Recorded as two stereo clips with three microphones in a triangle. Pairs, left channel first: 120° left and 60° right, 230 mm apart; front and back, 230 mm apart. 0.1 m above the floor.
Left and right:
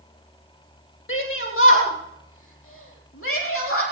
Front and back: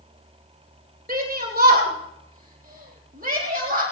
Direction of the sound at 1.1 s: 135° left.